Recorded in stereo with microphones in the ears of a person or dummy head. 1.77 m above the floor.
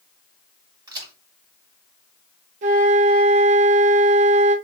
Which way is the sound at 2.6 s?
35° right (ahead or behind).